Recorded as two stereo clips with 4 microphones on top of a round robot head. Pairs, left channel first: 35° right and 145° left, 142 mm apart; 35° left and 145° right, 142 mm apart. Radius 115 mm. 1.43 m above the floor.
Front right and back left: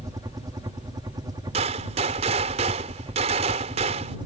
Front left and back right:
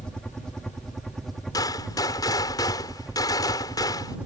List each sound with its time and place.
0.0 s a helicopter: 115° left; by 4.3 s 140° left
1.5 s a gunshot: 100° left